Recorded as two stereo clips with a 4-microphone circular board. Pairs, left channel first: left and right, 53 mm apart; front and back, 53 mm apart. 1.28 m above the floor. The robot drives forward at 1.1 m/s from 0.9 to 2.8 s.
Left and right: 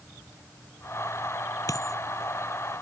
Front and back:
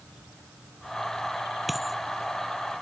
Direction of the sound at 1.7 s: 90° left.